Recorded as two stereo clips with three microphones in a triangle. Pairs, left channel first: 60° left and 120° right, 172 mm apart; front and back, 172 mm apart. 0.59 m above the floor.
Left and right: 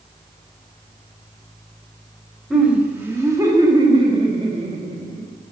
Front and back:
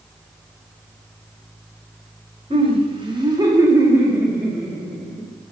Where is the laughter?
160° left, 1.2 m; by 5.3 s 85° right, 1.4 m.